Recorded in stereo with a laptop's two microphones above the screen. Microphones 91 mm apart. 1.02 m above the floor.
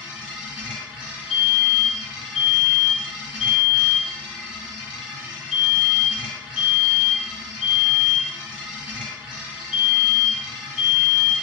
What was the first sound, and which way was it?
A machine running, 10° right (ahead or behind).